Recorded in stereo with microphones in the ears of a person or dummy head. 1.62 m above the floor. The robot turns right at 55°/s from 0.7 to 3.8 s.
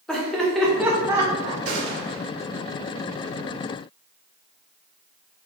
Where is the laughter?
Centre (ahead or behind), 1.2 m; by 1.6 s 40° right (ahead or behind), 1.2 m.